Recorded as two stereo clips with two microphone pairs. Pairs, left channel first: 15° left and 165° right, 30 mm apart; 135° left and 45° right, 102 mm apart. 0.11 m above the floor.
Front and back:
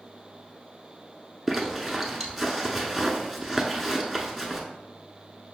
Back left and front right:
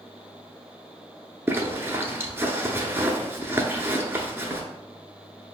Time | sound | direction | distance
1.5 | a zipper | 70° right | 0.7 m